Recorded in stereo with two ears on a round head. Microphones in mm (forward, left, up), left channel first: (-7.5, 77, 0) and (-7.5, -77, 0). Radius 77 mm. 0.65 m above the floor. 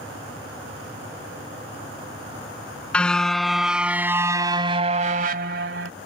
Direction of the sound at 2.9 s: 5° left (ahead or behind).